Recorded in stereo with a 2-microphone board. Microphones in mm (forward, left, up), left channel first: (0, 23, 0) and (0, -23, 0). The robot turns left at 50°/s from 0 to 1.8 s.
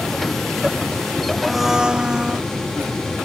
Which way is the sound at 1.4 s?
Centre (ahead or behind).